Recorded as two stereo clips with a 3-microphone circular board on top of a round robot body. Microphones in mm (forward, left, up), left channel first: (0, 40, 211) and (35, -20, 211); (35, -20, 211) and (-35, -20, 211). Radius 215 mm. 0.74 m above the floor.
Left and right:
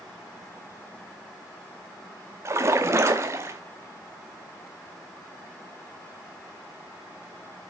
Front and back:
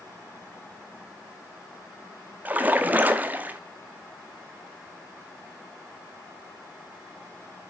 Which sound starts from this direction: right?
A splash, at 2.5 s.